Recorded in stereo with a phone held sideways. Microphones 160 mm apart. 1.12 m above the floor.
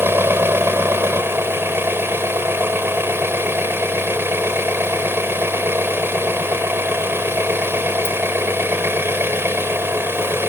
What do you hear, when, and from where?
0.0 s an engine running: 15° right (ahead or behind)